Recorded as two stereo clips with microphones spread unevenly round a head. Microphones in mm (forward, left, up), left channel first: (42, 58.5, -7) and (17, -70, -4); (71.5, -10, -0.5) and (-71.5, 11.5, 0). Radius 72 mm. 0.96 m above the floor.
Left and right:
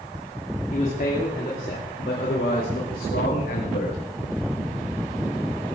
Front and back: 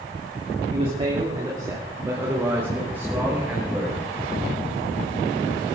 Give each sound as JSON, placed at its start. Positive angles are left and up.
{"t": 0.7, "sound": "a man speaking", "azimuth_deg": 125, "distance_m": 2.5}